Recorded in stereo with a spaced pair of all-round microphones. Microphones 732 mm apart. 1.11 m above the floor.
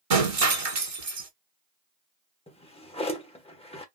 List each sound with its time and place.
0.1 s breaking glass: 50° right (ahead or behind), 1.1 m
2.5 s a drawer: 10° left (ahead or behind), 0.9 m